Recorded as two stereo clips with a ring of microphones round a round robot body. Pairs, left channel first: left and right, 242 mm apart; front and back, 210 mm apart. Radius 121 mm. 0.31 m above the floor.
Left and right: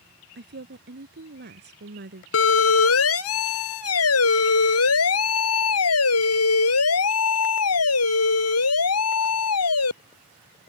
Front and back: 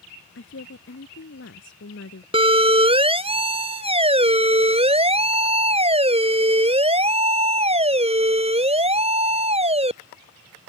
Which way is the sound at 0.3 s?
40° right.